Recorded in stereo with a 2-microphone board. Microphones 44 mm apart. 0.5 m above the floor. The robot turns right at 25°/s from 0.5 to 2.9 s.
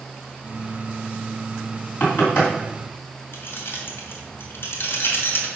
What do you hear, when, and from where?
2.0 s knocking: 40° left (ahead or behind), 3 m; by 2.5 s 55° left (ahead or behind), 3 m
3.3 s keys jangling: 65° left (ahead or behind), 1.5 m